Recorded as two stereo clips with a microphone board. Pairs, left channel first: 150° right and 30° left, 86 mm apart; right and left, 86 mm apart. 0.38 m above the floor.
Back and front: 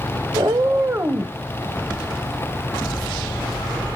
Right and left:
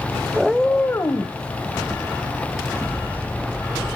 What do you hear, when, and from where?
0.3 s a cat meowing: 10° left, 0.7 m; by 1.4 s 45° right, 1.1 m